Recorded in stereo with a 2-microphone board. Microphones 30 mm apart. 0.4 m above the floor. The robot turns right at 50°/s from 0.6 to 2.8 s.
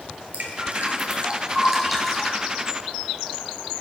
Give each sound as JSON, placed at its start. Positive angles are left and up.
{"t": 0.3, "sound": "dripping", "side_deg": -70, "distance_m": 2.5}